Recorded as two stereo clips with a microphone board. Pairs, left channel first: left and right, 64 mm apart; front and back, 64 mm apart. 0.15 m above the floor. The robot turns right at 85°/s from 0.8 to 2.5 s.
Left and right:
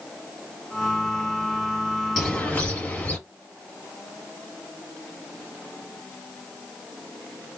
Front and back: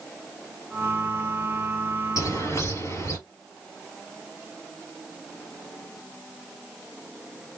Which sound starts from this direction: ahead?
A bird, at 2.2 s.